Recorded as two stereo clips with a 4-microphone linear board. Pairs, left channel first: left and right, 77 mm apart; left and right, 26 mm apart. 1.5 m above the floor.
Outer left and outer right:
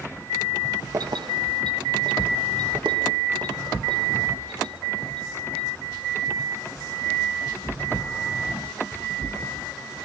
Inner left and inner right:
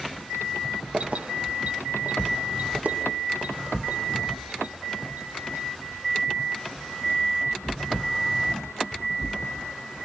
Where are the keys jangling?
50° right (ahead or behind), 1.0 m; by 5.6 s 85° right, 6.5 m.